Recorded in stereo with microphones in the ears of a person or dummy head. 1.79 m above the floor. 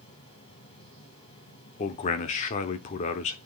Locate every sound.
0.0 s a fan: 30° left (ahead or behind), 3.5 m
1.8 s a man speaking: 40° left (ahead or behind), 0.9 m